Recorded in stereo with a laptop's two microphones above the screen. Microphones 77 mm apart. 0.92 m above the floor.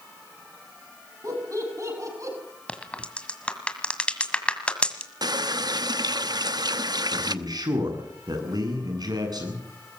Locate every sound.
1.2 s laughter: 50° right (ahead or behind), 7.5 m
2.7 s a crack: 15° left (ahead or behind), 1.8 m
5.2 s a running tap: 65° right (ahead or behind), 0.9 m
7.1 s a man speaking: 65° right (ahead or behind), 8.5 m